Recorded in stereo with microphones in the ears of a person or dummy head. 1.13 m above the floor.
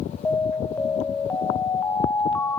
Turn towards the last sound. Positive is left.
turn(degrees=10)  # may be behind; listen again after turning